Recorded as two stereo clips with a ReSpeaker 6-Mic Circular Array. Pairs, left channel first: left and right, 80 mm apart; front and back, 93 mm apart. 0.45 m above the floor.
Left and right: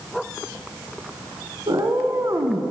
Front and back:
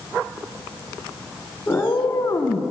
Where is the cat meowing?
65° right, 1.4 m; by 2.7 s 35° right, 1.1 m.